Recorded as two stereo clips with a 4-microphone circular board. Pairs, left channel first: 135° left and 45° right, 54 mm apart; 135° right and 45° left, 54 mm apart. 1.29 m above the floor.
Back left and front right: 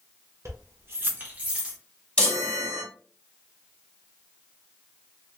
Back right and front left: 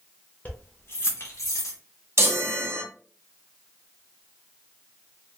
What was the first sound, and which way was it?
Keys jangling, 75° right.